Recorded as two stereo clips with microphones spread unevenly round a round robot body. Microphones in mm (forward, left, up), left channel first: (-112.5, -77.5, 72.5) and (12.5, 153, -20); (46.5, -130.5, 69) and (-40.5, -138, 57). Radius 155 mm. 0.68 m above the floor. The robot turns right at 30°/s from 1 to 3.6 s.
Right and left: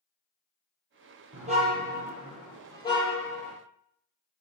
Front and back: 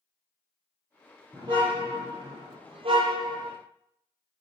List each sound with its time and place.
1.3 s a car horn: 125° left, 8.5 m; by 3.5 s 170° right, 8.5 m